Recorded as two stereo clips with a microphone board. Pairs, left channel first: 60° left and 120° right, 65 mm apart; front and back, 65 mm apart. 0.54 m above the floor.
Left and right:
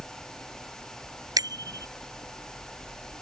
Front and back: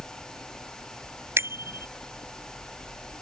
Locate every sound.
1.4 s a bicycle bell: 130° right